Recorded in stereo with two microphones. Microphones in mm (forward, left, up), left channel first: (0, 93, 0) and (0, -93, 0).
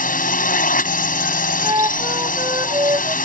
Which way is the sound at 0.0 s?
50° left (ahead or behind).